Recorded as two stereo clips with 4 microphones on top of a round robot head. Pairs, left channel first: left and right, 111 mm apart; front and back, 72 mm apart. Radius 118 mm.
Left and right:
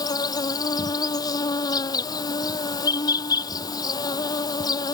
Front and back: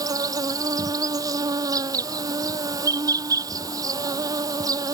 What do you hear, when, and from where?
0.0 s an insect: 145° left